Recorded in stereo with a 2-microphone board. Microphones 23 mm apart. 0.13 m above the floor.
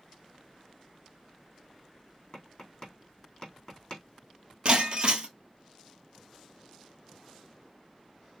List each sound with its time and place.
2.3 s tapping: 25° left (ahead or behind), 3.5 m
4.7 s breaking glass: 45° right (ahead or behind), 1.1 m